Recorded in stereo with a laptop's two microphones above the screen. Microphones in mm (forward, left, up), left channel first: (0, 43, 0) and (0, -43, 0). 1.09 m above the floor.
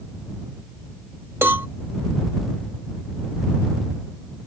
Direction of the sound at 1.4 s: 25° right (ahead or behind).